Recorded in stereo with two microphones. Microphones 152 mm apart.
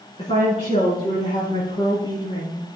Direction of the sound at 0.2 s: 40° left (ahead or behind).